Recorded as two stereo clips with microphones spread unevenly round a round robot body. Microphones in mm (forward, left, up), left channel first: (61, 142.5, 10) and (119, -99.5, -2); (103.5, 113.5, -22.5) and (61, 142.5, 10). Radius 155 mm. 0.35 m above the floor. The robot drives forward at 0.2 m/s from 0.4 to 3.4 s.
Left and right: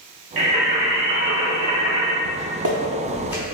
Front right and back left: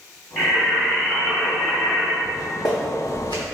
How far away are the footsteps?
About 0.8 m.